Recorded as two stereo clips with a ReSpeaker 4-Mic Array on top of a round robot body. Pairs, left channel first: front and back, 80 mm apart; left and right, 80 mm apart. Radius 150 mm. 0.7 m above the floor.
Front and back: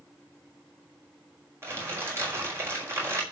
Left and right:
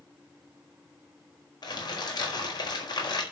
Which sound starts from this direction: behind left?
Crumpling, at 1.6 s.